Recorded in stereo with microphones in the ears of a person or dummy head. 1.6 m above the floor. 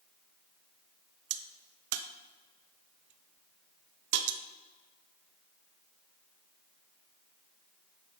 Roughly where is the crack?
Right.